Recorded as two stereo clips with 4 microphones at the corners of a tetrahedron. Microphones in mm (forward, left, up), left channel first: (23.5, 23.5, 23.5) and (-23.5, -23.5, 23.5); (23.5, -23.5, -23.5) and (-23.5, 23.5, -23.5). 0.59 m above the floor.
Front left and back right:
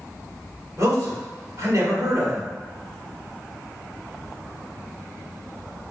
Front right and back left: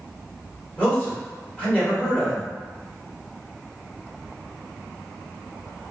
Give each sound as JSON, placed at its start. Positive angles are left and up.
{"t": 0.8, "sound": "a man speaking", "azimuth_deg": -110, "distance_m": 1.8}